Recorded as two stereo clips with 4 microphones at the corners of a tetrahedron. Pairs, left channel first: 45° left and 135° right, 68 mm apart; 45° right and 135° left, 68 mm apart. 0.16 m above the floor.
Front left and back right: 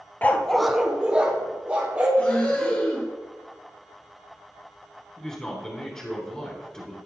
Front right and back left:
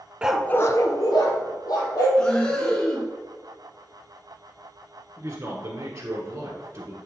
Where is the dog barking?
80° left, 0.5 m; by 2.1 s 65° right, 2.5 m.